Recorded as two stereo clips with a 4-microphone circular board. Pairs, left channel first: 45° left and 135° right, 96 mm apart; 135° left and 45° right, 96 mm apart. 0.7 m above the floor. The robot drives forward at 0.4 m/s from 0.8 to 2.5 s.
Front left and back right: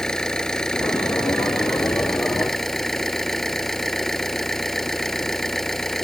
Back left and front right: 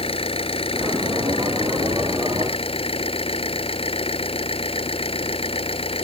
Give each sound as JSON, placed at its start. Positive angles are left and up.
{"t": 0.0, "sound": "an engine running", "azimuth_deg": 130}